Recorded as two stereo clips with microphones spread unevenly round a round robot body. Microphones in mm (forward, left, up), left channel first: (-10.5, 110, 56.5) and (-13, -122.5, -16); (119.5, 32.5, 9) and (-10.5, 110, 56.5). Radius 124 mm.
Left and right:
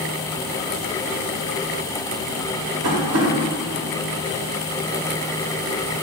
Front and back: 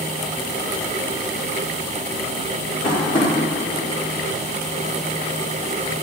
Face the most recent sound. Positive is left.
turn(degrees=-115)